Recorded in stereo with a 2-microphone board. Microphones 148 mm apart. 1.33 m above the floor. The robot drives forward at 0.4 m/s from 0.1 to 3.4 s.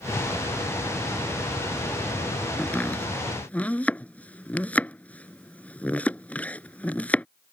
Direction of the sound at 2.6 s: 10° left (ahead or behind).